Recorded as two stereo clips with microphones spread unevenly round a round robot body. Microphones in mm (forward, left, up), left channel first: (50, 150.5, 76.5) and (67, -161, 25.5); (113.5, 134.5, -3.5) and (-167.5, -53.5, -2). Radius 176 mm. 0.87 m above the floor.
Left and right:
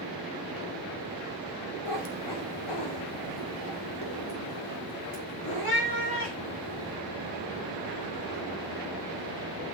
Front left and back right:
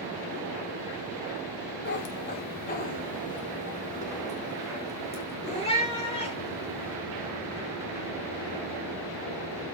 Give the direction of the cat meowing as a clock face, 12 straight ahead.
9 o'clock.